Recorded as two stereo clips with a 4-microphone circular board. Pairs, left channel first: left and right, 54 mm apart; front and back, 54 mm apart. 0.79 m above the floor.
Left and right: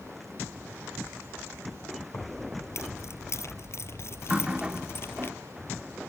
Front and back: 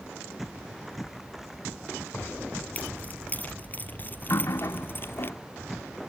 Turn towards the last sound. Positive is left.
turn(degrees=-20)